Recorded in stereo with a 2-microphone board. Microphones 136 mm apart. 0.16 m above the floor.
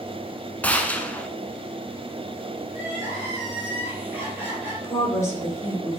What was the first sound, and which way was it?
A gunshot, 10° left (ahead or behind).